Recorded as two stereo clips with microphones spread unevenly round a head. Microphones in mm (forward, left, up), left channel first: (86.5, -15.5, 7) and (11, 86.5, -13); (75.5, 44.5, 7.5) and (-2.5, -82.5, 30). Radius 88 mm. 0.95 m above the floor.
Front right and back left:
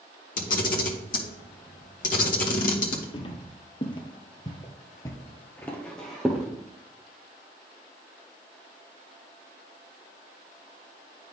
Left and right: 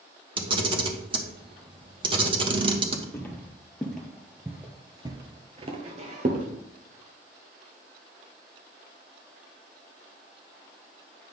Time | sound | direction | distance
0.4 | a camera shutter | 65° right | 1.2 m
3.1 | footsteps | 20° right | 1.6 m